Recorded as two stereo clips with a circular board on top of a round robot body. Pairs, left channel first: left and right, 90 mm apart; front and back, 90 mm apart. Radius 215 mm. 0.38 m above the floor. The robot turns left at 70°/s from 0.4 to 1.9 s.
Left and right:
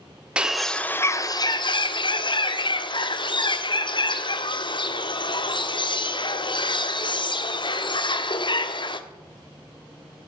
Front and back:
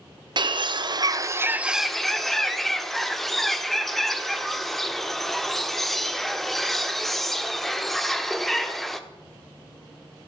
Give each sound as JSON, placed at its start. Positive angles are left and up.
{"t": 0.4, "sound": "a bird", "azimuth_deg": -170, "distance_m": 1.4}